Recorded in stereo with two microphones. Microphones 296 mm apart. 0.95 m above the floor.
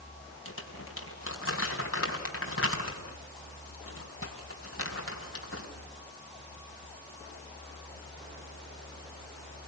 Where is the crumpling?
45° left (ahead or behind), 4 m.